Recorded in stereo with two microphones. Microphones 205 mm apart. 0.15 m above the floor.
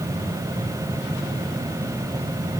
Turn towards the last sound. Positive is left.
No sound to turn to.